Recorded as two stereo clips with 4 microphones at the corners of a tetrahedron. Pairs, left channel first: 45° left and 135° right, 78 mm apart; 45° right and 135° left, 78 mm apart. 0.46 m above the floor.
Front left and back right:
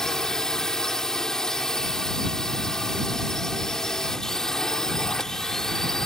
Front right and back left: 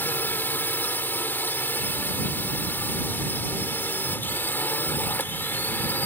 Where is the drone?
30° right.